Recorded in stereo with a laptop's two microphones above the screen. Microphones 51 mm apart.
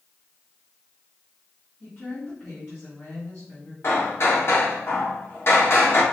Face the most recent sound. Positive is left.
turn(degrees=50)  # may be behind; listen again after turning